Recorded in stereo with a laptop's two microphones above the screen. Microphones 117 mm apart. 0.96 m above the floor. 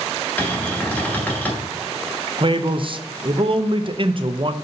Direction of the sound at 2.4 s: 45° right (ahead or behind).